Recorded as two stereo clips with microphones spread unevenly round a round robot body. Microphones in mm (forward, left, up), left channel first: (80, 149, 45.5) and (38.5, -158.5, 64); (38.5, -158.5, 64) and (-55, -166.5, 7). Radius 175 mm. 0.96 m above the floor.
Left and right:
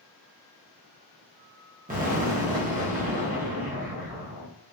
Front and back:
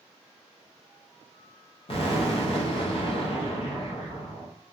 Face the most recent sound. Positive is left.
turn(degrees=-30)